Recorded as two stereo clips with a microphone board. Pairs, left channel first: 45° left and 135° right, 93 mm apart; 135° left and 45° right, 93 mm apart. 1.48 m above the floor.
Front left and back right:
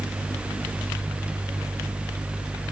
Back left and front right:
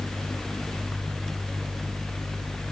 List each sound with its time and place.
Only background noise.